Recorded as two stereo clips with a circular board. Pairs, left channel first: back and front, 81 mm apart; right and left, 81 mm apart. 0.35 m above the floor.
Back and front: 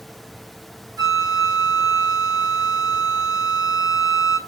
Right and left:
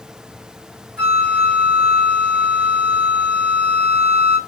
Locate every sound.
1.0 s a flute: 10° right, 1.7 m